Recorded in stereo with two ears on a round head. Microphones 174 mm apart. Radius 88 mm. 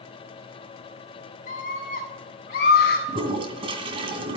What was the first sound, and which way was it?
A scream, 35° left (ahead or behind).